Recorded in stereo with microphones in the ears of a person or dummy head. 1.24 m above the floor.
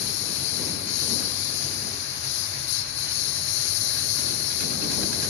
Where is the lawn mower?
65° left (ahead or behind).